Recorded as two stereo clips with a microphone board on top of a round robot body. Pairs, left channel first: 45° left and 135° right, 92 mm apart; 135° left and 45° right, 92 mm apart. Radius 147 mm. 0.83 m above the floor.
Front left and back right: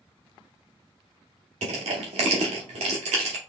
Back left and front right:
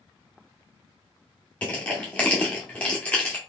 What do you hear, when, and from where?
1.6 s crushing: 145° right, 0.6 m